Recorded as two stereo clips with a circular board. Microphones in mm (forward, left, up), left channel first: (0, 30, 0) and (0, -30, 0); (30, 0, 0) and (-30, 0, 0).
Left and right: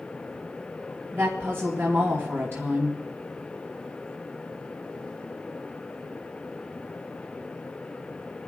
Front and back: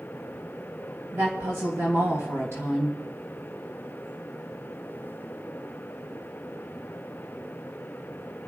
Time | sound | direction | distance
1.1 | a woman speaking | 140° right | 2.5 m